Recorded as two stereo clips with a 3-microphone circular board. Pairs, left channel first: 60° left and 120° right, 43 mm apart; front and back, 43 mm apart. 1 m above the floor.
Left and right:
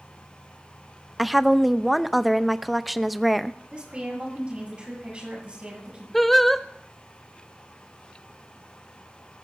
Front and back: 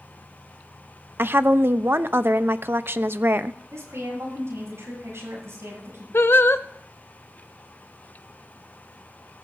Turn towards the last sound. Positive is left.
turn(degrees=-25)